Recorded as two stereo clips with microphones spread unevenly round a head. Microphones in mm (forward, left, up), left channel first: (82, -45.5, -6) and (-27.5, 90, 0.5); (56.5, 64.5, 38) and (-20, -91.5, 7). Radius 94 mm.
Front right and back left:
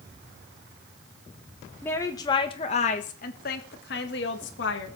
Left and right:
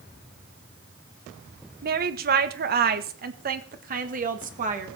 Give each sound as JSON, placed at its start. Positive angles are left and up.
{"t": 1.8, "sound": "a woman speaking", "azimuth_deg": -130, "distance_m": 1.2}